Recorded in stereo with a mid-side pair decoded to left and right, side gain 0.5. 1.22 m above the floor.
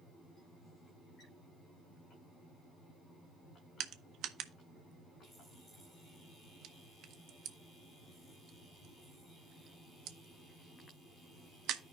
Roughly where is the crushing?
Ahead right.